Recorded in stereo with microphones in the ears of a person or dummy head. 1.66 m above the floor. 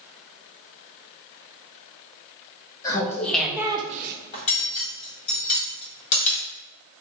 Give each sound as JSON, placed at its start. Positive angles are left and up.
{"t": 2.8, "sound": "laughter", "side_deg": 20, "distance_m": 1.2}
{"t": 4.3, "sound": "cutlery clinking", "side_deg": 40, "distance_m": 1.8}